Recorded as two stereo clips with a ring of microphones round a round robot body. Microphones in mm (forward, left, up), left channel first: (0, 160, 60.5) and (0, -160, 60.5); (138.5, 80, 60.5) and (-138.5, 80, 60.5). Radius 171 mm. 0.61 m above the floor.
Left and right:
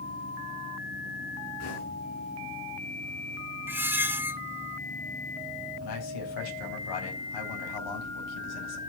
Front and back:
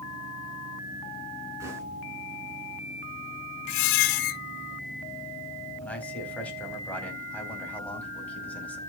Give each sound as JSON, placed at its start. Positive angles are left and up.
{"t": 1.6, "sound": "knocking", "azimuth_deg": 100, "distance_m": 5.0}
{"t": 3.7, "sound": "a squeak", "azimuth_deg": -5, "distance_m": 0.5}
{"t": 5.8, "sound": "a man speaking", "azimuth_deg": 85, "distance_m": 4.5}